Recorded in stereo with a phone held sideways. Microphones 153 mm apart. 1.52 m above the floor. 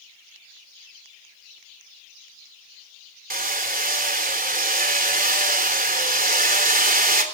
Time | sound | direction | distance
3.3 | hammering | 70° right (ahead or behind) | 3.5 m